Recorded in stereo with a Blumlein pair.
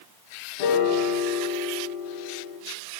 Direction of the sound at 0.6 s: 50° left.